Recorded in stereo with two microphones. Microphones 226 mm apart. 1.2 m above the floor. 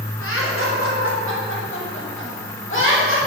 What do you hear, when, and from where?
0.2 s laughter: 75° left (ahead or behind), 4.5 m; by 3.2 s 60° left (ahead or behind), 7 m